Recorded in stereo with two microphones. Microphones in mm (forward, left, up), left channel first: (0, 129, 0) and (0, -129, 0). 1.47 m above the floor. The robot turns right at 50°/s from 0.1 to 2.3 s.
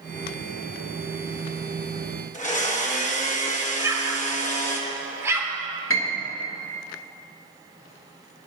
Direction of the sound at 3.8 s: 10° right (ahead or behind).